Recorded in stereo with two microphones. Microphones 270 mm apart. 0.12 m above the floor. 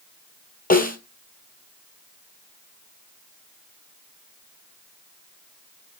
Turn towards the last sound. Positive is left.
turn(degrees=30)  # may be behind; listen again after turning